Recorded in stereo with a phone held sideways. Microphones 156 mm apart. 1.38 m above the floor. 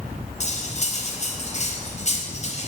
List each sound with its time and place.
0.4 s cutlery clinking: 45° left (ahead or behind), 4.5 m